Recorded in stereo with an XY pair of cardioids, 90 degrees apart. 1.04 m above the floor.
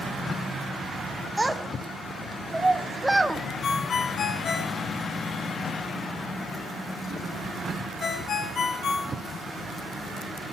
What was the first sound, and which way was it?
A child speaking, 15° right.